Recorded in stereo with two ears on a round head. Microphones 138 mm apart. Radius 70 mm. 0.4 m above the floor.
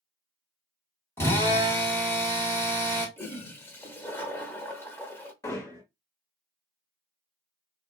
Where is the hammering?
20° left (ahead or behind), 1.1 m.